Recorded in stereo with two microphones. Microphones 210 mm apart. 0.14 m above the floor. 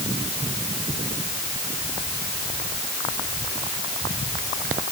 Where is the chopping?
No chopping in this recording.